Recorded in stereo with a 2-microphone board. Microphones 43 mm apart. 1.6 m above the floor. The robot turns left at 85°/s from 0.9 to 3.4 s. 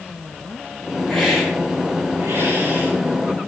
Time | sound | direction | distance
1.1 | a hiss | 20° left | 5 m